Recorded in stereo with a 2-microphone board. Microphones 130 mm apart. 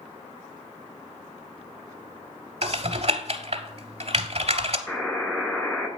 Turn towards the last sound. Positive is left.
turn(degrees=5)  # may be behind; listen again after turning